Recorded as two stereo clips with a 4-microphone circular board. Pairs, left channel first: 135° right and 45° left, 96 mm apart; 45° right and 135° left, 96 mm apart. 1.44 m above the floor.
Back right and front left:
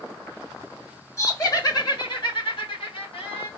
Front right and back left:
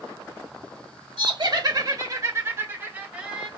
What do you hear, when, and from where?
1.2 s laughter: 170° left, 1.4 m; by 3.5 s 145° right, 1.6 m